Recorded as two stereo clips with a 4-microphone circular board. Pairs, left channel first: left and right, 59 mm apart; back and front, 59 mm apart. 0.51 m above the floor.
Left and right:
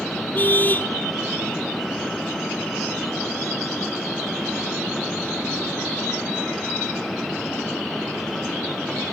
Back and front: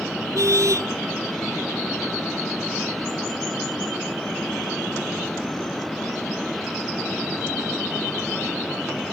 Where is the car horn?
30° left.